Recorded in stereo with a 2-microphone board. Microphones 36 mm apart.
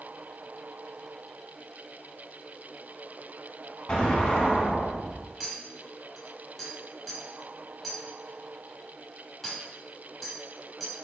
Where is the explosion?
25° left (ahead or behind), 1.0 m.